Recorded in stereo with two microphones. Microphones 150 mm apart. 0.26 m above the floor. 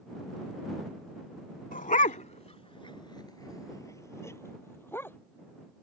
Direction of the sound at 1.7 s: 70° left (ahead or behind).